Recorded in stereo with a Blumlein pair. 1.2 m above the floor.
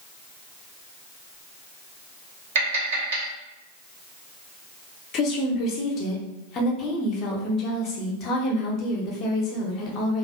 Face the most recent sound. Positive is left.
turn(degrees=30)